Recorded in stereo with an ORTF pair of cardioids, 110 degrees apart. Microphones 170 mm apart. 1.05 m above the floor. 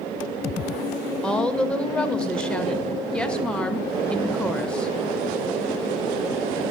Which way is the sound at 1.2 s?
5° left.